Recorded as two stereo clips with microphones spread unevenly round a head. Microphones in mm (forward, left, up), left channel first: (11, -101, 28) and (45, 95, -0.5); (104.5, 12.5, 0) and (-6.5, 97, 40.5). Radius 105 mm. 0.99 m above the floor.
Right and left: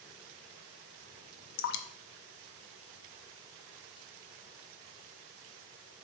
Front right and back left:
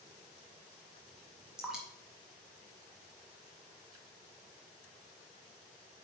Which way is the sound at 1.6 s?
135° right.